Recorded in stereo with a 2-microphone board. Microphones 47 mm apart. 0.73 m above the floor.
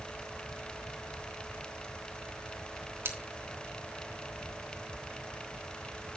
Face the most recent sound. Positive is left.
turn(degrees=-60)  # may be behind; listen again after turning